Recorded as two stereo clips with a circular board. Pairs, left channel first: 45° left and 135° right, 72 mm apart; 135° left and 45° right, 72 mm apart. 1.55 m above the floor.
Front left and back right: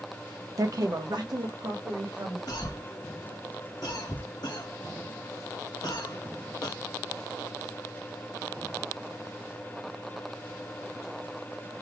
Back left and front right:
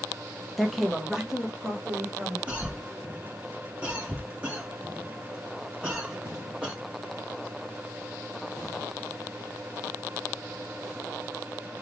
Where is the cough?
25° left, 1.0 m.